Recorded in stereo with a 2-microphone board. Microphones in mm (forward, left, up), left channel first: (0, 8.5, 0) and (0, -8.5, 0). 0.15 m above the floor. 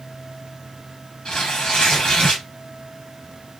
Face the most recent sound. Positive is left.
turn(degrees=75)  # may be behind; listen again after turning